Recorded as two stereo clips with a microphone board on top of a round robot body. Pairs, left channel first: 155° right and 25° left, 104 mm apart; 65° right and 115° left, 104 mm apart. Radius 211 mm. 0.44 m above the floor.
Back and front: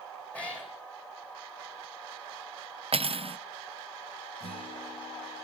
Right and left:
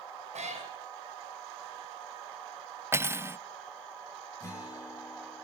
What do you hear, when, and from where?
0.3 s a cat meowing: 125° left, 3 m
2.9 s cutlery clinking: 45° left, 0.6 m
4.4 s a guitar: 130° right, 7 m